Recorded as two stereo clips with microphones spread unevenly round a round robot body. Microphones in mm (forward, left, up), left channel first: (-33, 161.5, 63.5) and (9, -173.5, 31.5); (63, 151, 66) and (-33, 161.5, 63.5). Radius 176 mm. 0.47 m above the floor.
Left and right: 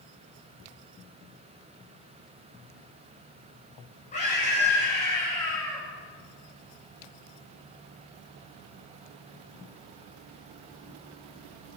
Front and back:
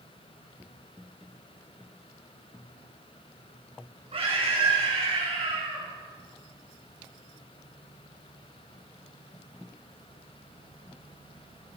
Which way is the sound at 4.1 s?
165° left.